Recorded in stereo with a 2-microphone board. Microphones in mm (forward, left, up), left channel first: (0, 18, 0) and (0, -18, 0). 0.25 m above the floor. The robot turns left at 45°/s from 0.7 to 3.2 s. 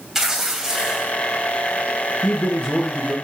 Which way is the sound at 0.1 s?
10° right (ahead or behind).